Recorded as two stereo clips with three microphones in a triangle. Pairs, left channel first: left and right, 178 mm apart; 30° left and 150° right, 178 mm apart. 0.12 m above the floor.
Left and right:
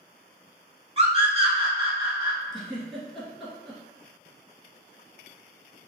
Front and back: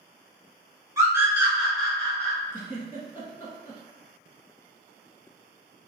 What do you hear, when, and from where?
1.0 s a scream: 95° right, 1.2 m; by 2.4 s 45° right, 1.4 m
2.5 s a giggle: 5° left, 1.2 m